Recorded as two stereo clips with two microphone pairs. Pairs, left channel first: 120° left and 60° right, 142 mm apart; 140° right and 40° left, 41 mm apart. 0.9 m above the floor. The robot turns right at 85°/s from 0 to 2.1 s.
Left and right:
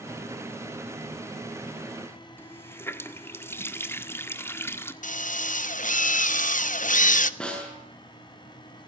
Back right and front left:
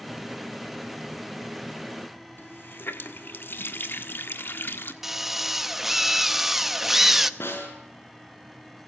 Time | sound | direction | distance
2.4 | a running tap | 165° right | 1.5 m
5.0 | a drill | 120° left | 1.0 m
7.4 | a snare drum | 155° right | 6 m